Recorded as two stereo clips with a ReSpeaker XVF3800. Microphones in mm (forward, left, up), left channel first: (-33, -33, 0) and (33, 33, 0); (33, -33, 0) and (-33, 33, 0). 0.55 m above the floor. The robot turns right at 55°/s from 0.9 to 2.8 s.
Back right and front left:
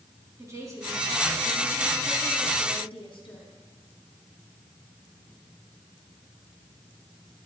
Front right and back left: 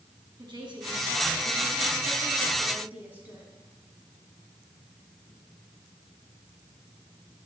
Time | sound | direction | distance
0.4 | a woman speaking | 100° left | 5 m